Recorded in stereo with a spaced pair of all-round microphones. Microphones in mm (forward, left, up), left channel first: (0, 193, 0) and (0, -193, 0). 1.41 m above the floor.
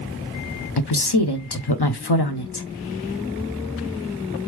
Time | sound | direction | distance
0.8 | a woman speaking | 75° left (ahead or behind) | 0.8 m